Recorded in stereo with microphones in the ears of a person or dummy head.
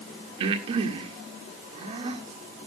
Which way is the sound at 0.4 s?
35° right (ahead or behind).